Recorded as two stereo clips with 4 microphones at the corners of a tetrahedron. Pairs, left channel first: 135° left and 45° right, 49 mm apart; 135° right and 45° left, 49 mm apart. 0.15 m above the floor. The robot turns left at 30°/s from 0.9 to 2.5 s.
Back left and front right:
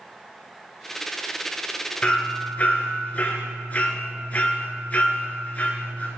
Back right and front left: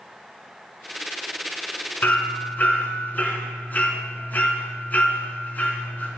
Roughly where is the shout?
No shout in this recording.